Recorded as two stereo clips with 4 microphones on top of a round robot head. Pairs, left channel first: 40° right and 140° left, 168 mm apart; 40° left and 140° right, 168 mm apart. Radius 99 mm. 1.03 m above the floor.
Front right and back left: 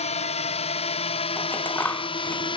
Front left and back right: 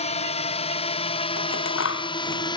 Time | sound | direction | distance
0.0 | a drone | straight ahead | ?
1.4 | scissors | 40° left | ?